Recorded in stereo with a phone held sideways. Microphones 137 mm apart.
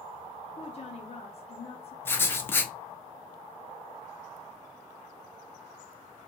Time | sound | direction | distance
0.6 | a woman speaking | 45° left (ahead or behind) | 0.5 m
2.0 | writing | 15° left (ahead or behind) | 0.6 m